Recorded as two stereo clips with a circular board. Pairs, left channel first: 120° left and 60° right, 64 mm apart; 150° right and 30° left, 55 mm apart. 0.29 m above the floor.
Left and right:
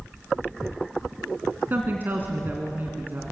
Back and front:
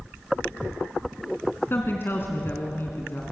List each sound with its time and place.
1.7 s a woman speaking: 110° right, 2.5 m